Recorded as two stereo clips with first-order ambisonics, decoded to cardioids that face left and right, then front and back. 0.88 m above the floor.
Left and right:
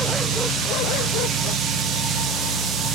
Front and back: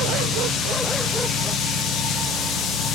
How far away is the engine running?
About 8.5 m.